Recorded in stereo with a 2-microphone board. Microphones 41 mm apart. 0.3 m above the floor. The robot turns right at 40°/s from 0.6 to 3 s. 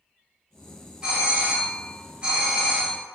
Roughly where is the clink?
I don't hear a clink.